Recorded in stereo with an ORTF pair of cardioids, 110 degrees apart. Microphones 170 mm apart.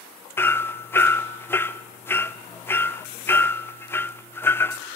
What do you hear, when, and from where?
0.4 s hammering: 15° left, 0.7 m